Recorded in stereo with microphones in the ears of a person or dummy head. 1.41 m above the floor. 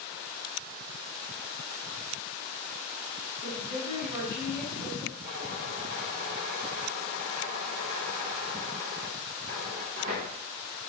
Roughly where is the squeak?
Right.